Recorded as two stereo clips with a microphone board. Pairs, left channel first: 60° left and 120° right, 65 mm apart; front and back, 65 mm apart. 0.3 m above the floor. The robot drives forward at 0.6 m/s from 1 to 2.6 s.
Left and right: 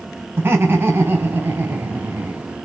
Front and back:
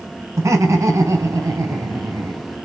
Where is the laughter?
165° right, 2.5 m; by 2.4 s 170° right, 3 m.